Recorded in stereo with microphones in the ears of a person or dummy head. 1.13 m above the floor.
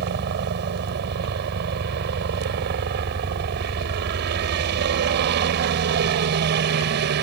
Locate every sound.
0.0 s a helicopter: 50° right (ahead or behind)